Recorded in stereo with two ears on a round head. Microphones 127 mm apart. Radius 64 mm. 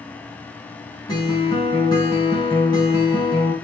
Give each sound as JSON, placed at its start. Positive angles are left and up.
{"t": 1.1, "sound": "a guitar", "side_deg": 30, "distance_m": 5.0}